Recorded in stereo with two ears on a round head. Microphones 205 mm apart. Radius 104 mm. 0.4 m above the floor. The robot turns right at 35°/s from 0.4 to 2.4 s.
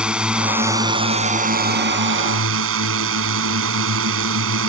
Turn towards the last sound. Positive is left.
turn(degrees=-105)